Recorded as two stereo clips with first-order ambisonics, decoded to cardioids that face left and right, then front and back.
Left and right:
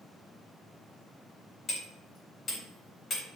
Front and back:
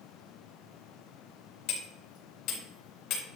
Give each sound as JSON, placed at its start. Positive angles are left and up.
{"t": 1.7, "sound": "hammering", "azimuth_deg": 25, "distance_m": 4.0}